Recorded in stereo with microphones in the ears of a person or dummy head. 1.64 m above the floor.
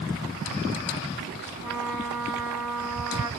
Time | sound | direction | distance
1.6 | a trumpet | 10° right (ahead or behind) | 1.1 m